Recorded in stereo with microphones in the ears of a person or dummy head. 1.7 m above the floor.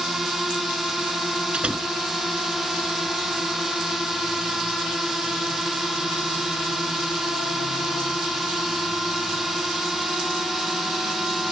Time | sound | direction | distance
0.0 | a drone | 5° left (ahead or behind) | ?
1.5 | a door slam | 10° right (ahead or behind) | ?